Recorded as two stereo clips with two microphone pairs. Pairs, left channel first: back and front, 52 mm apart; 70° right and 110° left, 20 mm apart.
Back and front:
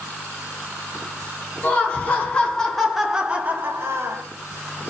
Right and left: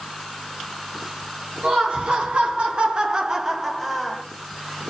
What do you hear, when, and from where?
1.6 s laughter: 130° left, 1.3 m; by 4.2 s 15° left, 0.8 m